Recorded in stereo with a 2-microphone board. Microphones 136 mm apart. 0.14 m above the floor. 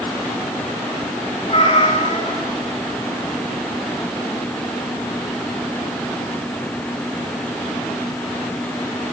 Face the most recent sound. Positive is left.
turn(degrees=40)  # may be behind; listen again after turning